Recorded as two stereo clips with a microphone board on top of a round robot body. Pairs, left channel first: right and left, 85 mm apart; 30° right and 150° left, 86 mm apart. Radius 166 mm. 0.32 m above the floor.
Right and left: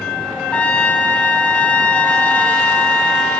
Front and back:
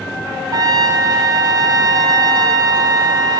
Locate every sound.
0.5 s a trumpet: 165° right, 1.0 m